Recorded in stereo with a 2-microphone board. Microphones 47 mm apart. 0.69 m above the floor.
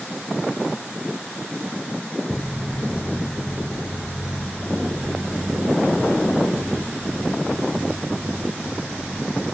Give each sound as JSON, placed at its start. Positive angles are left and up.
{"t": 2.3, "sound": "footsteps", "side_deg": 15, "distance_m": 0.9}